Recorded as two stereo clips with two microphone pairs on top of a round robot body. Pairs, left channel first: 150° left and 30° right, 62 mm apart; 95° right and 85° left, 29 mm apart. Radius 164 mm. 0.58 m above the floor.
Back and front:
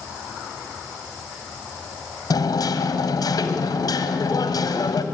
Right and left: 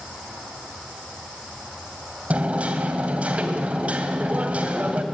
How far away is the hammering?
About 2 m.